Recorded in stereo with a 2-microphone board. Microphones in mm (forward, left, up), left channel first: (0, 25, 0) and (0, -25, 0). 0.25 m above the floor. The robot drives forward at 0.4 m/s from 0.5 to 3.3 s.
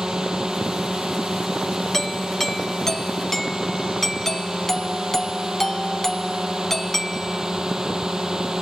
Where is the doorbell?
10° left (ahead or behind); by 7.5 s 5° left (ahead or behind).